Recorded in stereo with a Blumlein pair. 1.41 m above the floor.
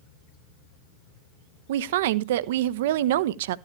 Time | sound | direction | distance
1.7 | a woman speaking | 55° right | 0.6 m